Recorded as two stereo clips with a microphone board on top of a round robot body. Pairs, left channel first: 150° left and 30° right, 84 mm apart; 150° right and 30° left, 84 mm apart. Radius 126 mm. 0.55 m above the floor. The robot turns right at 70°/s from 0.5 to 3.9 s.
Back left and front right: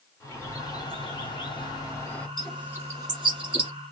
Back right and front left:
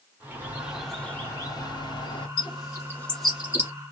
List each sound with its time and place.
0.2 s a bird: 95° left, 1.7 m; by 2.3 s 140° right, 1.7 m
2.4 s a bird: 125° right, 1.4 m; by 3.7 s 30° right, 1.4 m